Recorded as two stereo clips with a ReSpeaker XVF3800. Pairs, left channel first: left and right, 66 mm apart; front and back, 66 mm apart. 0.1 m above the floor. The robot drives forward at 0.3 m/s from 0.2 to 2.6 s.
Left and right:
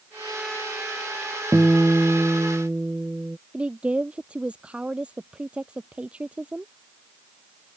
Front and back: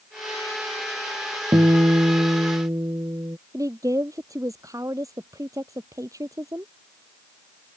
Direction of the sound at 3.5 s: 160° right.